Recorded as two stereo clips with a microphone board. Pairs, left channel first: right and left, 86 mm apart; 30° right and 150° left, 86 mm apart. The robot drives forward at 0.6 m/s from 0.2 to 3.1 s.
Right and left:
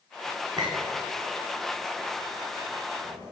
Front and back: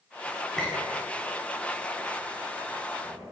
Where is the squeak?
50° left, 3.5 m; by 3.3 s 75° left, 3 m.